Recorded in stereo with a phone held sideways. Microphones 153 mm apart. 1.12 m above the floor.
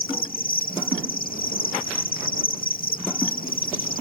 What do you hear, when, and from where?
0.0 s an insect: 70° left (ahead or behind)